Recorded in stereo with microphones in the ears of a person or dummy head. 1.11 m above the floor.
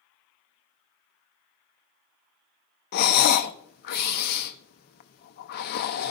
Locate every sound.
2.9 s breathing: 50° left (ahead or behind), 0.7 m